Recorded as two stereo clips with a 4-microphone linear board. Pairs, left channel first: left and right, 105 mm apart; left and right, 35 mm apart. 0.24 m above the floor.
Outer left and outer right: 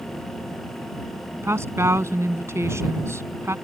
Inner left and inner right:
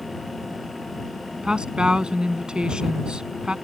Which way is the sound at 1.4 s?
25° right (ahead or behind).